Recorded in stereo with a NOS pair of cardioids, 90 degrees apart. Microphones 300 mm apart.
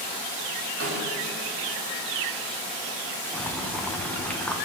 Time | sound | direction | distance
0.8 | a snare drum | 50° right | 5 m
3.3 | boiling | 5° left | 1.5 m